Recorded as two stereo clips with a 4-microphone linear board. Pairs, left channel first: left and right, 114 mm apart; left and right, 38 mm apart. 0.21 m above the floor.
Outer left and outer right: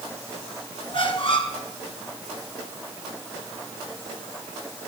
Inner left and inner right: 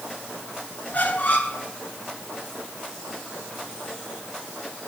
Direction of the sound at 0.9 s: 50° left (ahead or behind).